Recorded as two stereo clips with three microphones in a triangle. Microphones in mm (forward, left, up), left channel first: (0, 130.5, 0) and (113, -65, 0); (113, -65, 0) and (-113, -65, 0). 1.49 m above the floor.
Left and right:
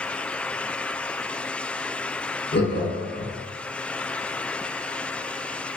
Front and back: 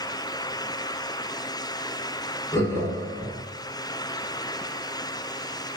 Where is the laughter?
80° left, 1.0 m.